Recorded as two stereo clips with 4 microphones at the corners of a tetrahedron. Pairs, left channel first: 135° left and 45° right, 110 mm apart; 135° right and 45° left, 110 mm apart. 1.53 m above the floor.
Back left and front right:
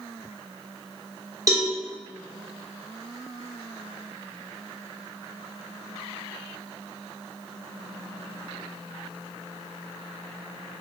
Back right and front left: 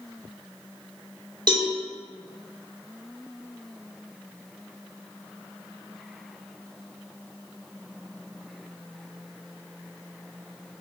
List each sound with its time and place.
1.5 s a cowbell: 10° left, 1.0 m